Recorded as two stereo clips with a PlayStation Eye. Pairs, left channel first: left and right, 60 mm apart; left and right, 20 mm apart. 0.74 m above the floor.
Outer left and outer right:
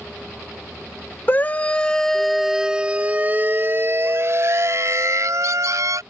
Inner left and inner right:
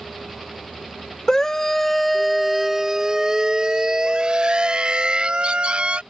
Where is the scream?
30° left (ahead or behind); by 6.0 s 65° right (ahead or behind).